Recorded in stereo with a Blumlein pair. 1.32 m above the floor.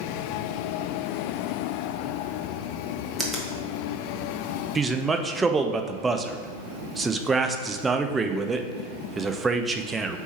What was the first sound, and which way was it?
A finger snap, 10° right.